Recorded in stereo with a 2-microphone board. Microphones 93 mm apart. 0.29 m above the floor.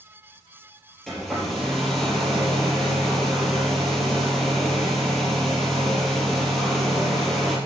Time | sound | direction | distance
1.1 | a hair dryer | 5° left (ahead or behind) | 4 m